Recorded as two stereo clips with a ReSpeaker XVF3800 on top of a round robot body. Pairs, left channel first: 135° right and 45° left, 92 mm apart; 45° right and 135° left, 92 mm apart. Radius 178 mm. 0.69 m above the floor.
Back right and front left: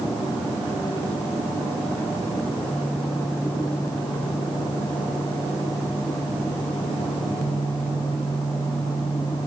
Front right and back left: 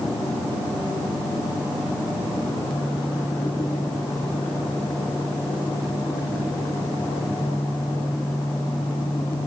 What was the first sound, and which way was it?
Only background noise.